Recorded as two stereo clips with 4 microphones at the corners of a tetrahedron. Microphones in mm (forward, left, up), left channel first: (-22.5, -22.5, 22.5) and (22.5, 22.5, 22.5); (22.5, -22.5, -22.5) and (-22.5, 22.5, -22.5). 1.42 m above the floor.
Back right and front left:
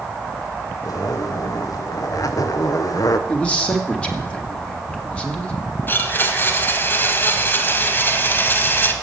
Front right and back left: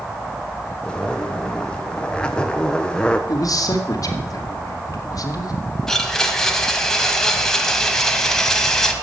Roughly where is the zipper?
Behind right.